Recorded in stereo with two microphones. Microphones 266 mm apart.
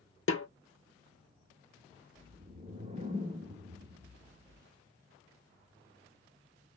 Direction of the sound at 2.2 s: 25° right (ahead or behind).